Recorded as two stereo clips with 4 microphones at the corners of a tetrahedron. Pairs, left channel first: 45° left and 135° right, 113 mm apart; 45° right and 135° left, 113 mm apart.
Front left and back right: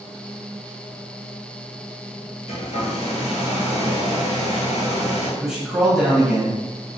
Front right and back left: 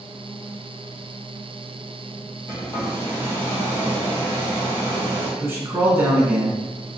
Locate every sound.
2.5 s a hair dryer: 25° left, 1.2 m
5.4 s a man speaking: 150° left, 1.4 m